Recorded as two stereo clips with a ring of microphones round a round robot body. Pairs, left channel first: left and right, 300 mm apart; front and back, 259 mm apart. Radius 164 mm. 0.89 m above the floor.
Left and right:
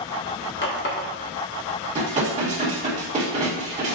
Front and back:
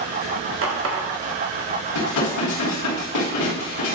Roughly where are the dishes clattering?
Ahead.